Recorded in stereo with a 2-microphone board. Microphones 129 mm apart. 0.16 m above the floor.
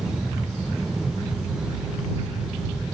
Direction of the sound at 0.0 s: 5° right (ahead or behind).